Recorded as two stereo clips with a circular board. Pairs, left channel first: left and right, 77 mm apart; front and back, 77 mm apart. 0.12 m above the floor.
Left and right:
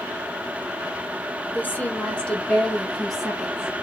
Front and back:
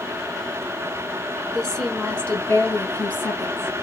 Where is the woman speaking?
75° left, 1.4 m; by 3.7 s 20° right, 1.6 m.